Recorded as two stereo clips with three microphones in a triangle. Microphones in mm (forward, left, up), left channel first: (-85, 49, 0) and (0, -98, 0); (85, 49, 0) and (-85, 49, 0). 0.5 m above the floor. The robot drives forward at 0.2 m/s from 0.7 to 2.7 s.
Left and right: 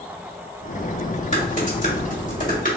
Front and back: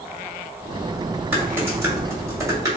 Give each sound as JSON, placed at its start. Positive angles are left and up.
{"t": 1.3, "sound": "typing on a keyboard", "azimuth_deg": 105, "distance_m": 1.7}